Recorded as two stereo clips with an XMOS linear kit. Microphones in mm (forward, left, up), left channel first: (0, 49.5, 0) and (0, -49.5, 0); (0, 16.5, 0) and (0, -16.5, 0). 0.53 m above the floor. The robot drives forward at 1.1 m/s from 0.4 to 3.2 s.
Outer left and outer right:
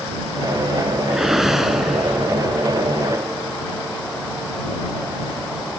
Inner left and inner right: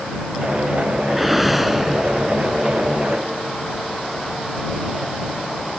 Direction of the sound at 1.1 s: 5° right (ahead or behind).